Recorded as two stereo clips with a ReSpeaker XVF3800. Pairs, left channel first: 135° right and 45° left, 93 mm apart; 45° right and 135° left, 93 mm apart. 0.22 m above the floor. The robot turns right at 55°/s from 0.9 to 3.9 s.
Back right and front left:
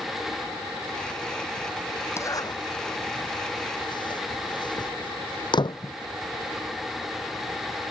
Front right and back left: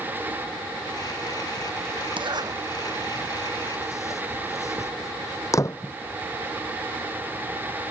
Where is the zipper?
165° left; by 5.9 s 100° right.